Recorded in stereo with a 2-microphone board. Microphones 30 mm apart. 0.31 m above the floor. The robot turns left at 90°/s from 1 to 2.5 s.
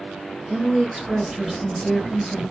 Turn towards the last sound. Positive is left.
turn(degrees=90)